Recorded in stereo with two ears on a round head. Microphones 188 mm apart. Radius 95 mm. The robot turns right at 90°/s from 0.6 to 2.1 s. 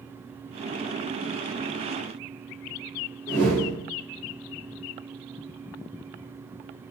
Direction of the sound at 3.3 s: 10° left (ahead or behind).